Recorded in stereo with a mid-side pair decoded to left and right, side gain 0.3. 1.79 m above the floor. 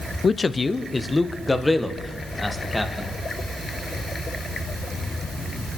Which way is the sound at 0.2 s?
55° left.